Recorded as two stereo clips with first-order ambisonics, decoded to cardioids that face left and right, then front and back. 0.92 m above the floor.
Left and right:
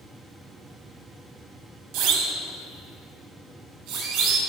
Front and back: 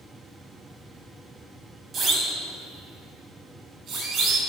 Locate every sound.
1.9 s a siren: 115° right, 4.5 m; by 4.4 s 125° right, 7.5 m